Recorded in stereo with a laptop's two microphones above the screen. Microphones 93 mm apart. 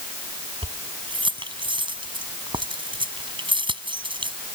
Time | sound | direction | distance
0.6 | keys jangling | 65° right (ahead or behind) | ?